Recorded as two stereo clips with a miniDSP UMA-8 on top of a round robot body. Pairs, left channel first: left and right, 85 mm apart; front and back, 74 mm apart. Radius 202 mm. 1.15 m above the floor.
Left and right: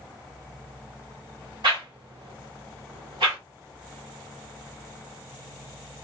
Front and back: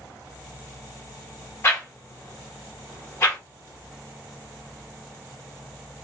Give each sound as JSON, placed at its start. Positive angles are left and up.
{"t": 1.6, "sound": "a whoosh", "azimuth_deg": -55, "distance_m": 1.5}